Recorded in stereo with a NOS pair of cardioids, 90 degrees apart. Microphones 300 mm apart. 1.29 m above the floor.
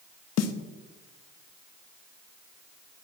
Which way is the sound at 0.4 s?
60° left.